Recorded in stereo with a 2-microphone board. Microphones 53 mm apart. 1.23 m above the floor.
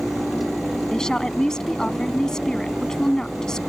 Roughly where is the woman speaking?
Centre.